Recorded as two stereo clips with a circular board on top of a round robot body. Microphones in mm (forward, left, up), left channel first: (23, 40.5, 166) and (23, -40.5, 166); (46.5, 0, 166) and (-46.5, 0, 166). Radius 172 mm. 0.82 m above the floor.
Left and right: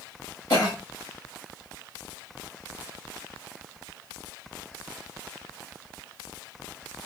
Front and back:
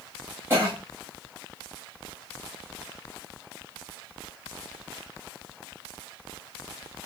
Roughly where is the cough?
Behind left.